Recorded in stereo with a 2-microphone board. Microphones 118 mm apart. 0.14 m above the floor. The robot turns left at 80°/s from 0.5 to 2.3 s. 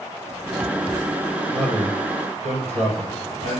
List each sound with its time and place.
1.5 s a man speaking: 40° right, 4 m; by 3.6 s 100° right, 4 m